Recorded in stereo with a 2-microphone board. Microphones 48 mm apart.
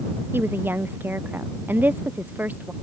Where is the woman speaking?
50° right (ahead or behind); by 2.7 s 40° right (ahead or behind).